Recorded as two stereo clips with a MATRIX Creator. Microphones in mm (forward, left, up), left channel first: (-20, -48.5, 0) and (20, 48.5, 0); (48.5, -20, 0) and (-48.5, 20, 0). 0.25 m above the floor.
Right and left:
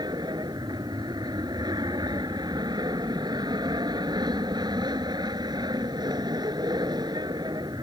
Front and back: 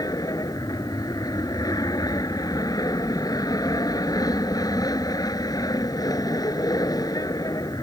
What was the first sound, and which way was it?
An aircraft, 25° left.